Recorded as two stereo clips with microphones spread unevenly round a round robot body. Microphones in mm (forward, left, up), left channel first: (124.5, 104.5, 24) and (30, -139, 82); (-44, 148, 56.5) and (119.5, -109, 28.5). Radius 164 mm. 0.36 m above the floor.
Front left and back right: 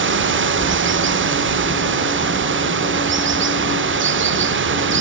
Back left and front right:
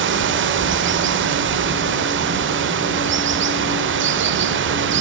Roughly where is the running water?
Right.